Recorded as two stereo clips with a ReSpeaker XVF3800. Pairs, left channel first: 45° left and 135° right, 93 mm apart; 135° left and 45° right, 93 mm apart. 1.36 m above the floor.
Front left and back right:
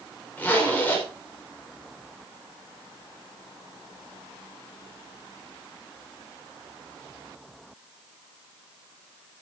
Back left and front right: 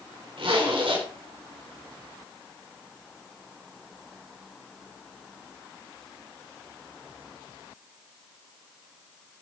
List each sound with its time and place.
0.4 s a zipper: 25° right, 5 m